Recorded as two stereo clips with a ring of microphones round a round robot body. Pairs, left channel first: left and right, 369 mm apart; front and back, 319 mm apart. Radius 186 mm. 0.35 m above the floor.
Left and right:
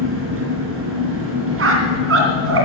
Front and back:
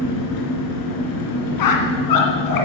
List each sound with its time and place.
0.0 s an engine running: 35° right, 4 m
1.6 s a squeak: 35° right, 2.5 m